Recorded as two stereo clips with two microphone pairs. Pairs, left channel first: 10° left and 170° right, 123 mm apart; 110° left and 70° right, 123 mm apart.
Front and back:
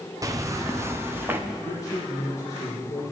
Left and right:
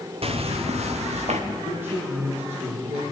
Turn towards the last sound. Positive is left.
turn(degrees=-45)